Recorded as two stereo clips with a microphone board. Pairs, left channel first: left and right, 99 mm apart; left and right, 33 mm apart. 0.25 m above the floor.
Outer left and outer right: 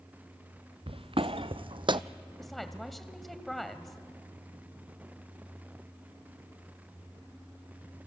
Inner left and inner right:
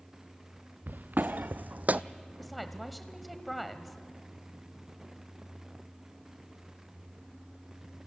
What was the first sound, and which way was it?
Footsteps, 70° right (ahead or behind).